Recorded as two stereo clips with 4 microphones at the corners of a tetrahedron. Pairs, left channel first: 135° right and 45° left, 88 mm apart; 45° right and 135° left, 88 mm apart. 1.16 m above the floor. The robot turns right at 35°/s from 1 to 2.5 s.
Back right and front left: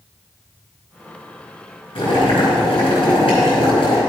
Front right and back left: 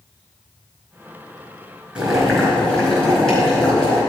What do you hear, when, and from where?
1.9 s boiling: 145° right, 4.5 m; by 4.0 s 125° right, 4.5 m